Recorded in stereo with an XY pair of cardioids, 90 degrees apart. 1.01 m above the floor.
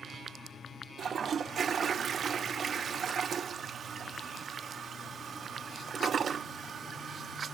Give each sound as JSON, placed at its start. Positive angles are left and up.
{"t": 1.0, "sound": "a toilet flushing", "azimuth_deg": -55, "distance_m": 0.6}